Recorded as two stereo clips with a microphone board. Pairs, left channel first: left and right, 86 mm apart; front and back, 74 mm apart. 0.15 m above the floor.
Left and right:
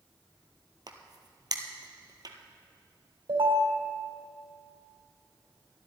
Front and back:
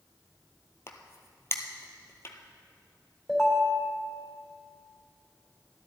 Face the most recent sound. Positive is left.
turn(degrees=-85)